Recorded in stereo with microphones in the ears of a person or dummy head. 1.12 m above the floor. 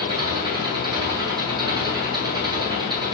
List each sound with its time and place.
0.0 s an engine running: 20° right (ahead or behind), 7.5 m